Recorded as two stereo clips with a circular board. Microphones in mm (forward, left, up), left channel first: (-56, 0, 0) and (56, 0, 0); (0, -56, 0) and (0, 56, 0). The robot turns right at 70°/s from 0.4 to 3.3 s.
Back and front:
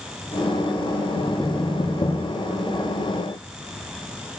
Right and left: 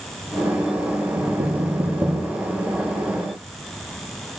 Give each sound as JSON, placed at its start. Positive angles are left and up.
{"t": 1.2, "sound": "knocking", "azimuth_deg": 90, "distance_m": 4.5}